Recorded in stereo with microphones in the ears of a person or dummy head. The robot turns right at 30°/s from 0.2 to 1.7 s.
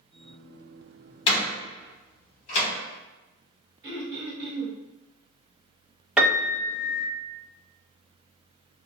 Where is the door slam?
30° left (ahead or behind), 1.2 m; by 2.7 s 45° left (ahead or behind), 1.2 m.